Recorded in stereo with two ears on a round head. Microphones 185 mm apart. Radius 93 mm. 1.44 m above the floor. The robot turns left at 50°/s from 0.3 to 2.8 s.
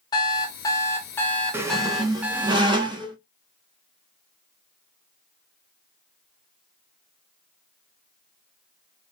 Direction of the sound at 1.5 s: 10° right (ahead or behind).